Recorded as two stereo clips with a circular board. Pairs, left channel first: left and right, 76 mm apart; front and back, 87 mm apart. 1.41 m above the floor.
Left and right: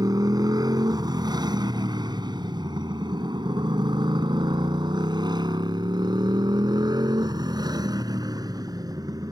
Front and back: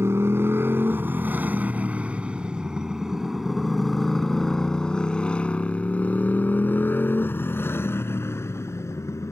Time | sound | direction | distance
0.0 | a motorcycle | 120° right | ?